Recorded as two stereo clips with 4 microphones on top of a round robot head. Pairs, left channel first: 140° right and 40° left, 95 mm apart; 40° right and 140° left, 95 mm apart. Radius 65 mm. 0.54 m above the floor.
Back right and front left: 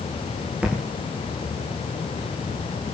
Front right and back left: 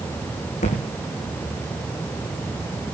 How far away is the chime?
No chime in this recording.